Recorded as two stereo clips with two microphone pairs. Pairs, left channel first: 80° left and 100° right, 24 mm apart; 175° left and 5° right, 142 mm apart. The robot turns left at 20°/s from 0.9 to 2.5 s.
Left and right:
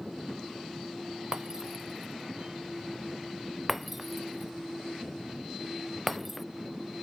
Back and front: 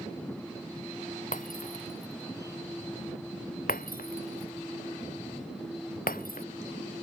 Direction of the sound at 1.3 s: 165° right.